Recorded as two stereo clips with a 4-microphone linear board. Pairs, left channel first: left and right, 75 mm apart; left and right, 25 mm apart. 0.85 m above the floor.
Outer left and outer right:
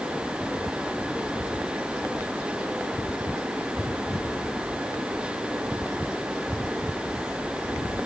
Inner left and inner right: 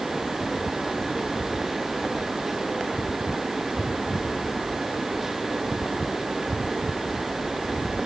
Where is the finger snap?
No finger snap in this recording.